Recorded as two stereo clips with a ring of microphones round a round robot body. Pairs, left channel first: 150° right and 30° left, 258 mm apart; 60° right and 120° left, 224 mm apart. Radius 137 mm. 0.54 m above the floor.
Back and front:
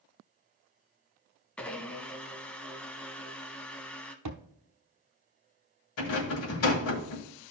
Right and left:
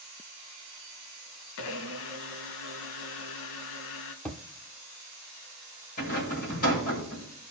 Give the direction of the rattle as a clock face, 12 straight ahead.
4 o'clock.